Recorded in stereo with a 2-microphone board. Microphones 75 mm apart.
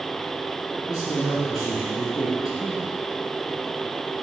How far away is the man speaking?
About 2 m.